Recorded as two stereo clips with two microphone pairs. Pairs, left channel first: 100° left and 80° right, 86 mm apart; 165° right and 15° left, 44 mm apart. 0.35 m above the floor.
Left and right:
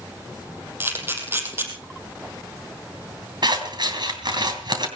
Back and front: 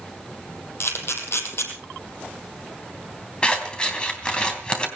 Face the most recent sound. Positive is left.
turn(degrees=-100)